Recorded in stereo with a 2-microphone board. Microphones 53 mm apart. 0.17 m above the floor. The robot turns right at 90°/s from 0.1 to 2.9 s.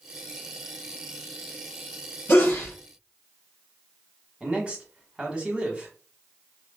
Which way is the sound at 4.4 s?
20° right (ahead or behind).